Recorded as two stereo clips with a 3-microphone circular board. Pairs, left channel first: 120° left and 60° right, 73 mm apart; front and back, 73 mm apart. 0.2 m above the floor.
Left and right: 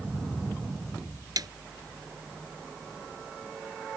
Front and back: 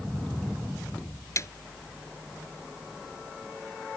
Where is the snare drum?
45° right.